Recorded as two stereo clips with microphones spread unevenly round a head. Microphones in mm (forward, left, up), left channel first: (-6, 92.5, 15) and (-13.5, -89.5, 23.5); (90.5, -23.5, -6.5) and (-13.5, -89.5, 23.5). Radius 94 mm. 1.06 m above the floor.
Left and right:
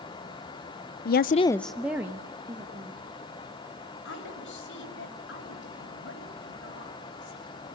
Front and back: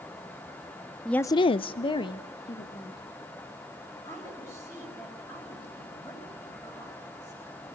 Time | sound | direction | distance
1.1 | a woman speaking | 115° left | 0.6 m
4.0 | a woman speaking | 110° left | 5.5 m